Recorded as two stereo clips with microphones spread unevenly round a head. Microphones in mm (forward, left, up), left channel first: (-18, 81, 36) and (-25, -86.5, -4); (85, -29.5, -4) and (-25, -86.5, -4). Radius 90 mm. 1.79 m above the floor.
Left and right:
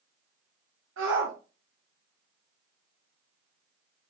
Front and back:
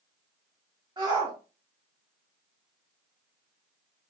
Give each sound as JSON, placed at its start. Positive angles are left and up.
{"t": 1.0, "sound": "a shout", "azimuth_deg": -95, "distance_m": 1.1}